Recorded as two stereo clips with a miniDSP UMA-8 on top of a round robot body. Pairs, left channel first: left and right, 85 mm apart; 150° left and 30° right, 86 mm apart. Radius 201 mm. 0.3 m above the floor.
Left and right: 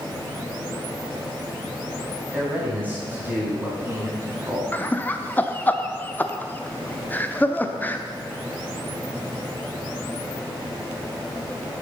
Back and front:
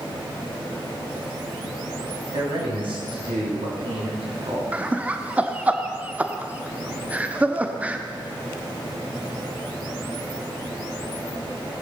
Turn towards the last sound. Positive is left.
turn(degrees=35)